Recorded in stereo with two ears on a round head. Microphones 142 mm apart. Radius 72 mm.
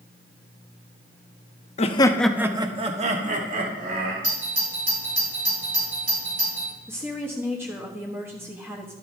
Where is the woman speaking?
15° right (ahead or behind), 1.3 m.